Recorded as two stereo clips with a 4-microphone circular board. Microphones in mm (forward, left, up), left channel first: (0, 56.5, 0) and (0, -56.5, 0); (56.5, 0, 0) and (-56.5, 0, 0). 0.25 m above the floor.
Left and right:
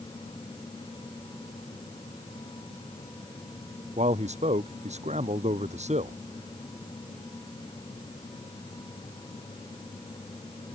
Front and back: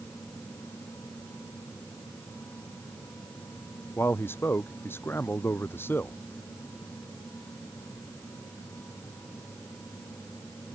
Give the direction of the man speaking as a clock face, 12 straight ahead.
2 o'clock.